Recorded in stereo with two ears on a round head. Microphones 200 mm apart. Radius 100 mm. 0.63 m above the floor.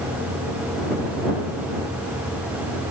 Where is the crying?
No crying in this recording.